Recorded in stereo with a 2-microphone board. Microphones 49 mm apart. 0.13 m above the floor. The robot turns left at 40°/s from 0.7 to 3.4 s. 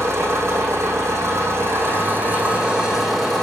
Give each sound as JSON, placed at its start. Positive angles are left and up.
{"t": 0.0, "sound": "an engine running", "azimuth_deg": -80, "distance_m": 4.0}